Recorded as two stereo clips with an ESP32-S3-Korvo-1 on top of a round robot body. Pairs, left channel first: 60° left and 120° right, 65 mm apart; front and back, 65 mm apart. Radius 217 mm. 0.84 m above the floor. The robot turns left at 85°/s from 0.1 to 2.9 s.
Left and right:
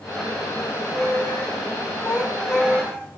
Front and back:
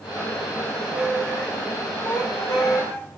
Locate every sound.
0.6 s a squeak: 125° left, 1.7 m; by 3.1 s 65° right, 1.7 m